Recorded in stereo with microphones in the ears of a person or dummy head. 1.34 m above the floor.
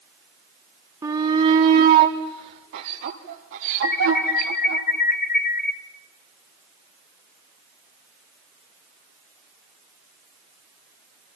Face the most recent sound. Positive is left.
turn(degrees=50)  # may be behind; listen again after turning